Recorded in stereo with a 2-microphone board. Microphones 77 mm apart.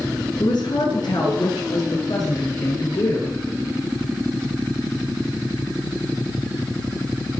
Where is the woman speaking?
60° left (ahead or behind), 9.5 m; by 3.4 s 50° left (ahead or behind), 10 m.